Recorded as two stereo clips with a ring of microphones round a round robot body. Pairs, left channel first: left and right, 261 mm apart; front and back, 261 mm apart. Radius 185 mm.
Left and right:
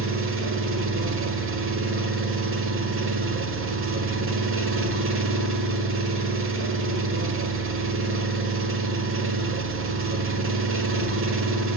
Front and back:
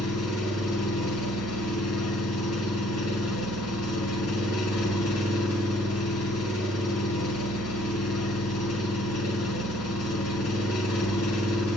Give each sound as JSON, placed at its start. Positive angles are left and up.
{"t": 0.0, "sound": "an engine running", "azimuth_deg": -50, "distance_m": 1.4}